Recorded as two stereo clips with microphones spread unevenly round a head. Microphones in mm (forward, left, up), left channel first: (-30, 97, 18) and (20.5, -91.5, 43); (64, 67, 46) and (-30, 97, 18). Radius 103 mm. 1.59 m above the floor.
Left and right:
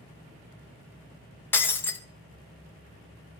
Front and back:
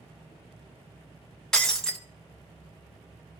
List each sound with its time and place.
1.5 s breaking glass: 20° left, 0.9 m